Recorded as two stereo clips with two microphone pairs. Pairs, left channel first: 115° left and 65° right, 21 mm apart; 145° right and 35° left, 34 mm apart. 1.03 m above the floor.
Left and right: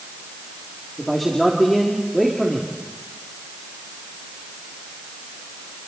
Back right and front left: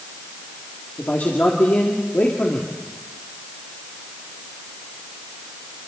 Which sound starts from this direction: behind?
A man speaking, at 1.0 s.